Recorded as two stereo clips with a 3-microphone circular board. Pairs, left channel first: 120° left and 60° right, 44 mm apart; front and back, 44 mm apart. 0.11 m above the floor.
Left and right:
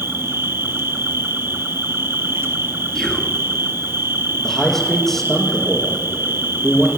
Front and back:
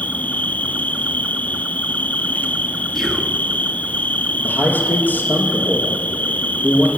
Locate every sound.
0.0 s an insect: 50° right, 0.9 m
3.0 s whispering: 70° left, 1.1 m
4.4 s a man speaking: 40° left, 3 m